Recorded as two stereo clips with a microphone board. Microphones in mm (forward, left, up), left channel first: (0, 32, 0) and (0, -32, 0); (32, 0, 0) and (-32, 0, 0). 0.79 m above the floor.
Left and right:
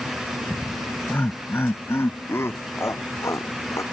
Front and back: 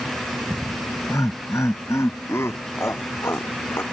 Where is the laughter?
30° left; by 3.8 s 50° left.